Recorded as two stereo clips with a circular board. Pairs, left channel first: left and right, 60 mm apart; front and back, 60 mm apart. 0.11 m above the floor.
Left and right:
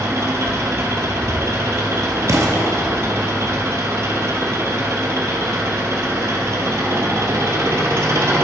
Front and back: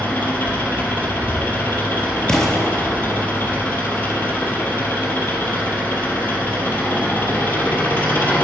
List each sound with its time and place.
0.0 s an engine running: 55° right, 0.9 m
2.3 s an explosion: 75° right, 0.7 m